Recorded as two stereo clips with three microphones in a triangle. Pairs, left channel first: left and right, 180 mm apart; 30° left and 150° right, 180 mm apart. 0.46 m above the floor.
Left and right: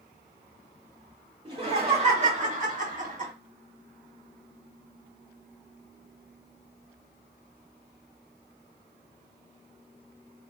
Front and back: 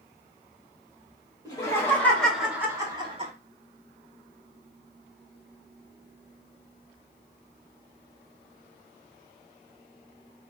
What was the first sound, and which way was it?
Laughter, 40° right.